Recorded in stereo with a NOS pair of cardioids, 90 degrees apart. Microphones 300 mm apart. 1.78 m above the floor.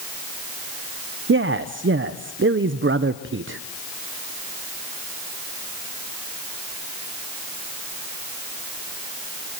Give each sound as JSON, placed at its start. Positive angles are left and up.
{"t": 1.3, "sound": "a man speaking", "azimuth_deg": -45, "distance_m": 1.2}